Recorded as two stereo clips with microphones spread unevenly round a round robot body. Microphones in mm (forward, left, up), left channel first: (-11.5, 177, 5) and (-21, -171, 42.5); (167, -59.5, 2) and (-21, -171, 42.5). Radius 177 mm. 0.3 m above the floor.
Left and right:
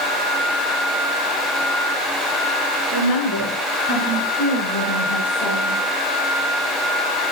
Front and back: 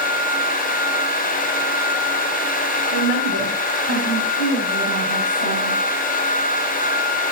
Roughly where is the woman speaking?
Ahead left.